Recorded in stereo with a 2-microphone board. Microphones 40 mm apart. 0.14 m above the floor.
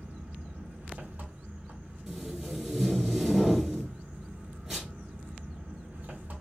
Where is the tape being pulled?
5° right (ahead or behind), 1.5 m.